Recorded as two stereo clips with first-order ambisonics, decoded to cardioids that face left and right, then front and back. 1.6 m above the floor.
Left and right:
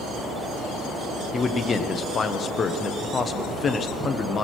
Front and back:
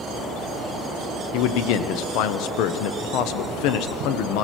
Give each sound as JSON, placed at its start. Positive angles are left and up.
{"t": 1.3, "sound": "a man speaking", "azimuth_deg": 20, "distance_m": 0.8}